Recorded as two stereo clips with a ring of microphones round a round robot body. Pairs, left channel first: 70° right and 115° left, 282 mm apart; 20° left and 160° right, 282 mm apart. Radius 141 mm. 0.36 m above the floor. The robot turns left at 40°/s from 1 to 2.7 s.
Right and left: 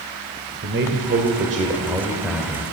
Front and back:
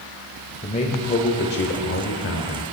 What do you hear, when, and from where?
0.6 s a man speaking: 80° left, 1.1 m; by 2.6 s 15° left, 1.1 m